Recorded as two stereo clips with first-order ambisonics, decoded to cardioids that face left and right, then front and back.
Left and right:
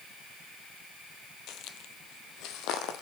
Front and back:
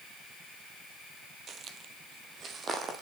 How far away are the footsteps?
About 1.3 m.